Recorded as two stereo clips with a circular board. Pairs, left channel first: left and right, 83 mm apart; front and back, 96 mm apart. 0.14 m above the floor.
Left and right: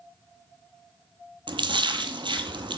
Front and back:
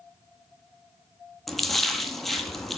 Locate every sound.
1.5 s a splash: 90° right, 0.6 m